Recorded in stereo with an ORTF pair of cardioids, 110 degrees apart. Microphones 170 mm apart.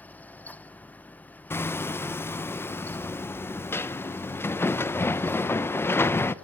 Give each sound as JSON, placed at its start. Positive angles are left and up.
{"t": 0.0, "sound": "a fan", "azimuth_deg": 10, "distance_m": 0.8}
{"t": 1.5, "sound": "hammering", "azimuth_deg": 15, "distance_m": 0.9}